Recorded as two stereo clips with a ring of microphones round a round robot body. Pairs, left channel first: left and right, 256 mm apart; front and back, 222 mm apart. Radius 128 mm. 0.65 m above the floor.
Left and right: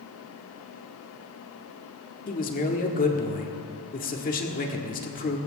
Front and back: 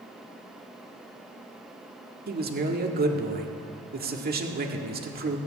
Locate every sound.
2.3 s a man speaking: 140° left, 1.7 m